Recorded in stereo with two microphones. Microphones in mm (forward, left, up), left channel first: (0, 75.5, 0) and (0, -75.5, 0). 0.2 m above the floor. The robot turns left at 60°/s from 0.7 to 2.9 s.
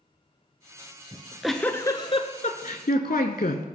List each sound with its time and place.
1.1 s a giggle: 160° right, 0.7 m; by 3.7 s 95° left, 0.7 m